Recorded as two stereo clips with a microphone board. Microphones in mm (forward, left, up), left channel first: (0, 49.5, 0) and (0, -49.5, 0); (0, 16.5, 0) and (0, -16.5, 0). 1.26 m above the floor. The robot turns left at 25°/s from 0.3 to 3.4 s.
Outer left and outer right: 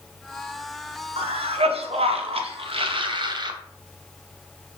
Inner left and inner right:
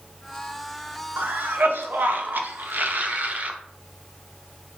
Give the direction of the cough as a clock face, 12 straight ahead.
2 o'clock.